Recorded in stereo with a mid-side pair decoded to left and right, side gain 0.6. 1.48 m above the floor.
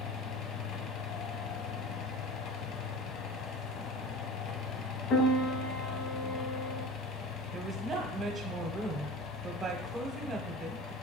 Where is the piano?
65° left, 0.8 m.